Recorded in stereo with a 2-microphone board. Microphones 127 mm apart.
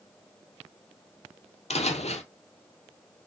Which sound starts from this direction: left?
Footsteps, at 1.7 s.